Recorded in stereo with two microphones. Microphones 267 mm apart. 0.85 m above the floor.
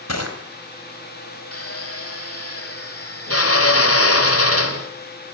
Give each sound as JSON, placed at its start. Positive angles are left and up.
{"t": 0.1, "sound": "crushing", "side_deg": 70, "distance_m": 4.0}
{"t": 1.5, "sound": "a drill", "side_deg": 60, "distance_m": 2.5}